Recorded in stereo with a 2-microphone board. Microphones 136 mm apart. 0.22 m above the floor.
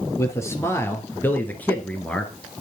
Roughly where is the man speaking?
Left.